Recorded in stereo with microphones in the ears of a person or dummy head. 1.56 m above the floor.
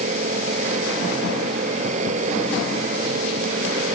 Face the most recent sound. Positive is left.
turn(degrees=-40)  # may be behind; listen again after turning